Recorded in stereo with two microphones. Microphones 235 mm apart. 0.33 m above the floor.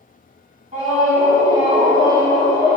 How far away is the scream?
About 2 m.